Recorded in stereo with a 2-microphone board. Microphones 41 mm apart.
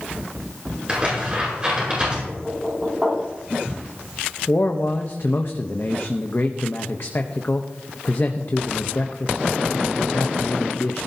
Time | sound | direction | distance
0.9 | tearing paper | 25° right (ahead or behind) | 8 m
2.2 | knocking | 15° right (ahead or behind) | 6.5 m
4.5 | a man speaking | 55° left (ahead or behind) | 0.9 m